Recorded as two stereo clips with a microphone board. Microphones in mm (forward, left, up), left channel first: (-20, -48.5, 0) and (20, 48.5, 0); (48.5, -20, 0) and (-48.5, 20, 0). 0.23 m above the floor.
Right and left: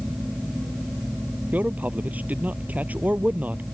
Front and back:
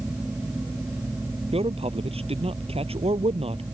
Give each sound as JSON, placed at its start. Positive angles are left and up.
{"t": 1.5, "sound": "a man speaking", "azimuth_deg": 140}